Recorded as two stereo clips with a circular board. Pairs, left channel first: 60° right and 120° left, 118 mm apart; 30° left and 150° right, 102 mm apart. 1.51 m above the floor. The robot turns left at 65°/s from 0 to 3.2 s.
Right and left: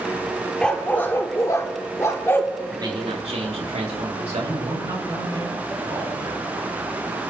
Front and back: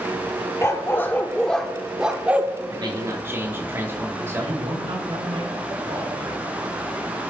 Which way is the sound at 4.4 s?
Straight behind.